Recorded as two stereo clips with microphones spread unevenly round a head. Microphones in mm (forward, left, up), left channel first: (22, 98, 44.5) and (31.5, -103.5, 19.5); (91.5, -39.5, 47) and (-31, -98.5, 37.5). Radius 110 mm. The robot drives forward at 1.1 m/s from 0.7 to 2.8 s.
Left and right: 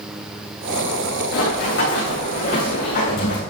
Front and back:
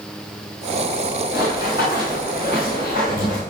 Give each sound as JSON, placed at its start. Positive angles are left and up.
{"t": 1.3, "sound": "running footsteps", "azimuth_deg": 130, "distance_m": 5.5}